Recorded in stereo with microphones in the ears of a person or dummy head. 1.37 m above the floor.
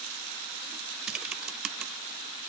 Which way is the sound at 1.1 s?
Centre (ahead or behind).